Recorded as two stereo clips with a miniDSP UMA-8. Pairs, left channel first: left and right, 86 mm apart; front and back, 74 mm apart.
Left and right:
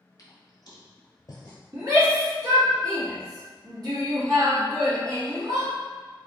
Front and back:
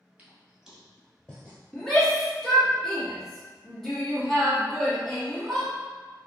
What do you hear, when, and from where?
0.2 s footsteps: 115° left, 1.1 m; by 1.6 s 70° left, 1.1 m
1.7 s a shout: 85° right, 1.4 m